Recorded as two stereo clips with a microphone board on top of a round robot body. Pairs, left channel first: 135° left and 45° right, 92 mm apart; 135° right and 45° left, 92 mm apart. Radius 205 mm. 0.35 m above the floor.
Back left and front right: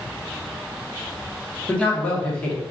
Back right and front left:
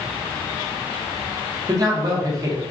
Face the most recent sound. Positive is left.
turn(degrees=65)